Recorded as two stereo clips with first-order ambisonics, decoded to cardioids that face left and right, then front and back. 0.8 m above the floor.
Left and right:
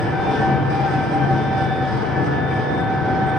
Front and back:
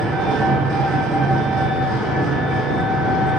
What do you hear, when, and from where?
0.0 s an engine running: 145° left, 0.7 m